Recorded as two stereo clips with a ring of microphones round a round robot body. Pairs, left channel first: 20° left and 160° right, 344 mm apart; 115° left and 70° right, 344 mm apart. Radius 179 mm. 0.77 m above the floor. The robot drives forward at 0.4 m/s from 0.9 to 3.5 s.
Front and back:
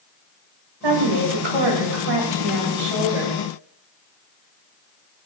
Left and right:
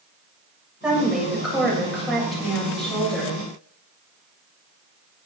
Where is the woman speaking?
155° right, 3 m; by 3.4 s 160° right, 4 m.